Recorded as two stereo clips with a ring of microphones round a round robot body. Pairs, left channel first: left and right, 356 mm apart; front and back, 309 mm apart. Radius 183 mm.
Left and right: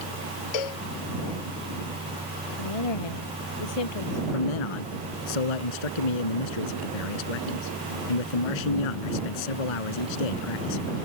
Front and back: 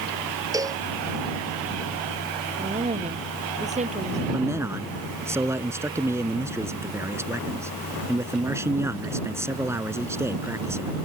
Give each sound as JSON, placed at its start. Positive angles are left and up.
{"t": 0.5, "sound": "a cowbell", "azimuth_deg": 100}
{"t": 2.6, "sound": "a woman speaking", "azimuth_deg": 110}
{"t": 4.3, "sound": "a man speaking", "azimuth_deg": 100}